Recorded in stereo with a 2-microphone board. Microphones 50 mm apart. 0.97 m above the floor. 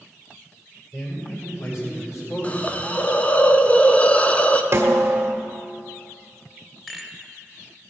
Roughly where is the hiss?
Left.